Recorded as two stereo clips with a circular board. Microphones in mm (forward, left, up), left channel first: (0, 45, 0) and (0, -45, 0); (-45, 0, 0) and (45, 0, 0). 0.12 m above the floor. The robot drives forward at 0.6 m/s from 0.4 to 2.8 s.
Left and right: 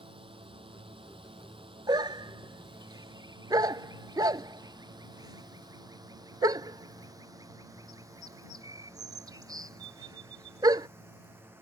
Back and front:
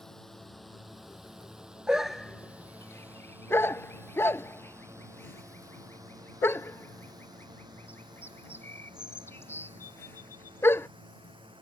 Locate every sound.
0.0 s a drone: 95° right; by 11.6 s 25° right
1.9 s a dog barking: 80° right; by 10.9 s 120° right